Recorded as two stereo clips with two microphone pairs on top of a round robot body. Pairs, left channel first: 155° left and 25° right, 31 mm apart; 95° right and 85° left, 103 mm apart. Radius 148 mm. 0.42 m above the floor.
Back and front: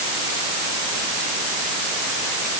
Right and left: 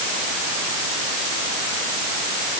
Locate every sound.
Only background noise.